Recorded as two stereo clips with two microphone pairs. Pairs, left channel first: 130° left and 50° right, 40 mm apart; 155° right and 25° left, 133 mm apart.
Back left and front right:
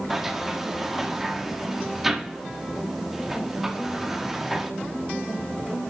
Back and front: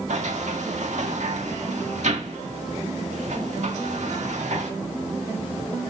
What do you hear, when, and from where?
0.1 s a sliding door: 35° left, 1.7 m